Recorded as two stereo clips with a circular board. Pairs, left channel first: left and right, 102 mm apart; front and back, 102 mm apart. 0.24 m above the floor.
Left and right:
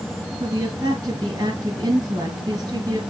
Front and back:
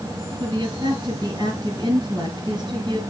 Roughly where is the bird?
I don't hear a bird.